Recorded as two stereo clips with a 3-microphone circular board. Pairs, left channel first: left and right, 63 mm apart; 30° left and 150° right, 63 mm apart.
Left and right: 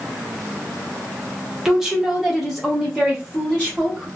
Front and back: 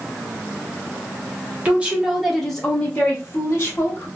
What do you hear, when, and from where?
1.6 s a woman speaking: 160° right, 0.9 m; by 4.1 s 5° left, 1.3 m